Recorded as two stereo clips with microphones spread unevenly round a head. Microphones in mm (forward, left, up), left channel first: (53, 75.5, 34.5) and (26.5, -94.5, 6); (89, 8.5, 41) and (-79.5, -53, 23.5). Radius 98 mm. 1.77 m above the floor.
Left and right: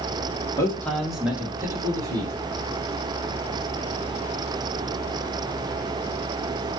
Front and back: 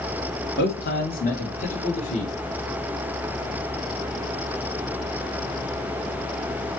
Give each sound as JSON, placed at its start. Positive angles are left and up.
{"t": 0.6, "sound": "a man speaking", "azimuth_deg": 20, "distance_m": 1.1}